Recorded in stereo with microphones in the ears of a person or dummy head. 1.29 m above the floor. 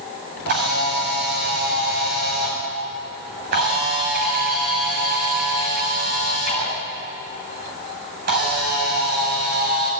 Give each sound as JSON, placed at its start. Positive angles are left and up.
{"t": 0.5, "sound": "a camera shutter", "side_deg": -55, "distance_m": 8.0}